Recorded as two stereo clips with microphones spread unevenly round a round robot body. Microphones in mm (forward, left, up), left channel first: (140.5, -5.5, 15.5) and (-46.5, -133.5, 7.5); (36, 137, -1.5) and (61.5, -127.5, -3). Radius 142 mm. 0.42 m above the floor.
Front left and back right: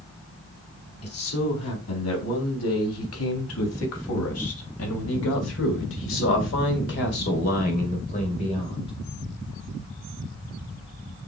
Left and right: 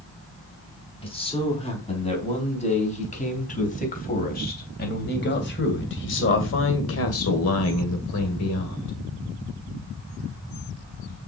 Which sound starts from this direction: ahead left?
A man speaking, at 1.0 s.